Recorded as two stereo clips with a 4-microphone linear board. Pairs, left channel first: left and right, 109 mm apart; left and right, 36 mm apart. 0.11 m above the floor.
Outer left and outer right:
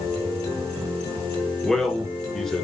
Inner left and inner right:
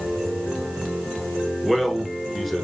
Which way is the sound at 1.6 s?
5° left (ahead or behind).